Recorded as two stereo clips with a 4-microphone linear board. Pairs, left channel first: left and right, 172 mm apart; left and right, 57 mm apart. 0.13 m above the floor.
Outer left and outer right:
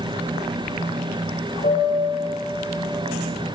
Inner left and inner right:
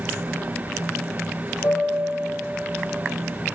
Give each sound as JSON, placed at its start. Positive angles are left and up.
{"t": 1.6, "sound": "a piano", "side_deg": 60, "distance_m": 6.5}